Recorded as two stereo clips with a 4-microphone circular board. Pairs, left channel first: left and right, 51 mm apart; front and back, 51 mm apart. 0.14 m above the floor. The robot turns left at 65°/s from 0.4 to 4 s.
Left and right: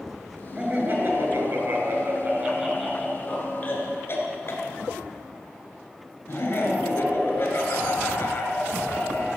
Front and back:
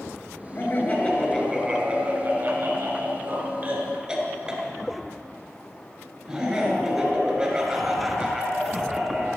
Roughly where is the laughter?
Ahead.